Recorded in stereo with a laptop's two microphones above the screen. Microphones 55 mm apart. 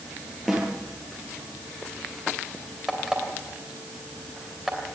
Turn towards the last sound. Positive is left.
turn(degrees=-10)  # may be behind; listen again after turning